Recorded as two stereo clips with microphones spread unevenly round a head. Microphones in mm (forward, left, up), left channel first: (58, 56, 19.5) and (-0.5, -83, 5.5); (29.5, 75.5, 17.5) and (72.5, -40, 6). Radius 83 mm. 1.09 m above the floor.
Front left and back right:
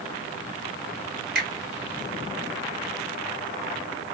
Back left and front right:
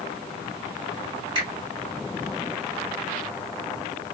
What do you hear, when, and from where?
1.4 s a finger snap: 135° right, 2 m